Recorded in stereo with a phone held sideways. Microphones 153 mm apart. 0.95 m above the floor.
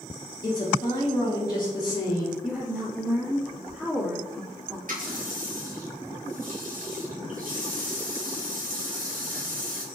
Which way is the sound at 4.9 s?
65° right (ahead or behind).